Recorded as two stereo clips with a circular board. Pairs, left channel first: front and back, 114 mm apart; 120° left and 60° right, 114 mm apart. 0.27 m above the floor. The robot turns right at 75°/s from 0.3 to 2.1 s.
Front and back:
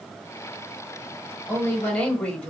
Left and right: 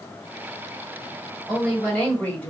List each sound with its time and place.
1.5 s a woman speaking: 20° left, 1.1 m; by 2.5 s 65° left, 1.1 m